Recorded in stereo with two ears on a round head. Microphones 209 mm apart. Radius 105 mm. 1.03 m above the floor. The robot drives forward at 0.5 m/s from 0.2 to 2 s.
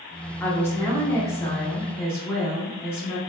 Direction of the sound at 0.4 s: 10° left (ahead or behind).